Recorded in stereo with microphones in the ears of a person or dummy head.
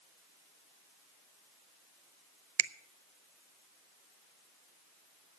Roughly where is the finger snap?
Right.